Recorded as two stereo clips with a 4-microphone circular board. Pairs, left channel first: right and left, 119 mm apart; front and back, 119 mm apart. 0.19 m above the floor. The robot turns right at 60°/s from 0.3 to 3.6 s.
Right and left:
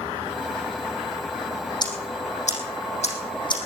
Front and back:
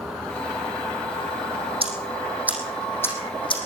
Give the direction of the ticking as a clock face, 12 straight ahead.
5 o'clock.